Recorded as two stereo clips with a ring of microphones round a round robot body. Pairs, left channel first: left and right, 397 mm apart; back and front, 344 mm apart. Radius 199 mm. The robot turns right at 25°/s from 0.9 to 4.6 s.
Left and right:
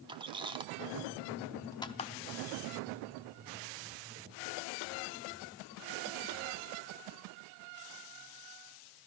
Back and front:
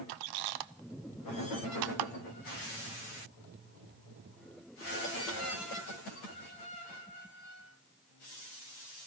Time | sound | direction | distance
0.1 | a squeak | 10° right | 0.5 m